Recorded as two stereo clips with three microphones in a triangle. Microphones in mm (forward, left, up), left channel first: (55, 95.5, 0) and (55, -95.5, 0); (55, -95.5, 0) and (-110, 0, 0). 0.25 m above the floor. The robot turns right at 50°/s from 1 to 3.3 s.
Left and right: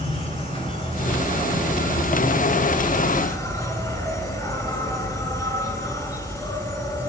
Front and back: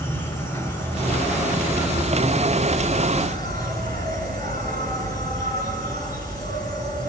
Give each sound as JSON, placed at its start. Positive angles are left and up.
{"t": 0.0, "sound": "an insect", "azimuth_deg": 40, "distance_m": 4.0}